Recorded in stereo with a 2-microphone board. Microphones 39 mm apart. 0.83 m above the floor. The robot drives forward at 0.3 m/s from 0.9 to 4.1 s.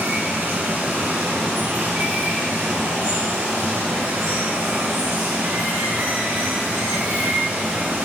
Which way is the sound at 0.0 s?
75° right (ahead or behind).